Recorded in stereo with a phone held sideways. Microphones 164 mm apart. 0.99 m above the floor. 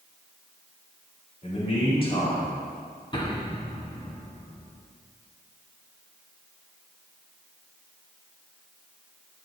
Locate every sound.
1.4 s a man speaking: 40° left (ahead or behind), 3.5 m; by 2.7 s 30° left (ahead or behind), 4 m
3.1 s an explosion: 30° left (ahead or behind), 1.6 m